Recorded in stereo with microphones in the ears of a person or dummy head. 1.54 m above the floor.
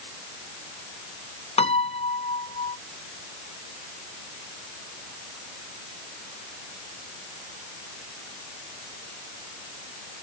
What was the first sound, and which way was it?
A piano, 35° left (ahead or behind).